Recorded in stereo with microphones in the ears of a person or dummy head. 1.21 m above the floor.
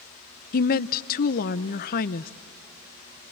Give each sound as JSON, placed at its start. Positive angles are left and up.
{"t": 0.5, "sound": "a woman speaking", "side_deg": 50, "distance_m": 0.8}